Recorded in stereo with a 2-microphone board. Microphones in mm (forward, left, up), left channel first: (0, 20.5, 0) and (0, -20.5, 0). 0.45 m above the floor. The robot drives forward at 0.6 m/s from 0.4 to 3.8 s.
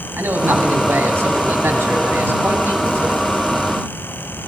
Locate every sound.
0.2 s a man speaking: 70° right (ahead or behind), 4 m